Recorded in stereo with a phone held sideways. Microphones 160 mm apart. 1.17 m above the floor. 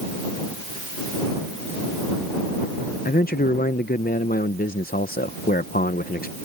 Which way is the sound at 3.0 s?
70° left (ahead or behind).